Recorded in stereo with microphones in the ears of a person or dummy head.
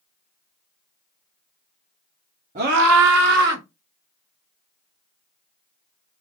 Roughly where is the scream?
Right.